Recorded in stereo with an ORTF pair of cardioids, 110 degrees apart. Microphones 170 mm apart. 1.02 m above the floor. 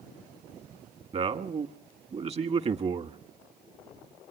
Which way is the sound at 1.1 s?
35° right.